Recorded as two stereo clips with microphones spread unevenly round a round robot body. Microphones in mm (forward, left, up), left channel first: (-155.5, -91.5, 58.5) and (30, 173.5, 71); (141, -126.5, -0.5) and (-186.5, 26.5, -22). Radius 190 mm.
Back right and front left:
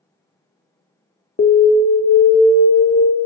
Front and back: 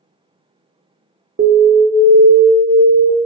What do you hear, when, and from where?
1.4 s an alarm: 170° right, 0.5 m